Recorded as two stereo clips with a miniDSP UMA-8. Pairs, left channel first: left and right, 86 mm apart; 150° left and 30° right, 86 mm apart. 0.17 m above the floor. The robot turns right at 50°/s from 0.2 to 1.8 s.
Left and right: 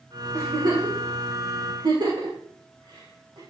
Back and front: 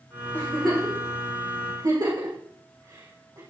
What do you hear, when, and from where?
0.3 s a giggle: 135° right, 6.5 m; by 3.4 s 60° right, 6.5 m